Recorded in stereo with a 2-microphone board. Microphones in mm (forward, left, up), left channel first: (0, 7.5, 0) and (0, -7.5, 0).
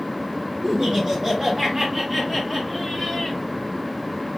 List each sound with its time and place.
0.6 s laughter: 45° right (ahead or behind), 1.9 m; by 3.4 s 20° left (ahead or behind), 1.8 m